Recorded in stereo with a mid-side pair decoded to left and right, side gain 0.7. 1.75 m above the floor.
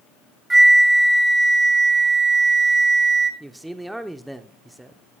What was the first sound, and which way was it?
A flute, 15° right.